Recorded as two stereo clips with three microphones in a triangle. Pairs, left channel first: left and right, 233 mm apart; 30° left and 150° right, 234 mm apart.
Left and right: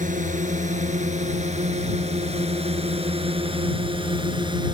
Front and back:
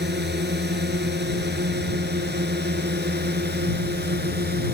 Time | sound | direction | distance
0.0 | a drone | 135° right | ?